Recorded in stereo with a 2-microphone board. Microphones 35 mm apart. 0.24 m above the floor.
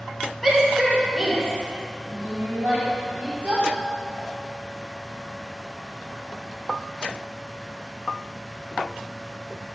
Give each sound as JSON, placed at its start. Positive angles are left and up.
{"t": 0.4, "sound": "a shout", "side_deg": 5, "distance_m": 2.0}